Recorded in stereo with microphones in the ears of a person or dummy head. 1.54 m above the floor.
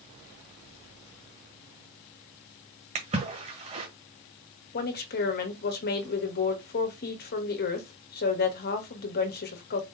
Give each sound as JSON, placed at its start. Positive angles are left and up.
{"t": 3.0, "sound": "a splash", "side_deg": -30, "distance_m": 1.5}
{"t": 4.7, "sound": "a woman speaking", "side_deg": 45, "distance_m": 1.2}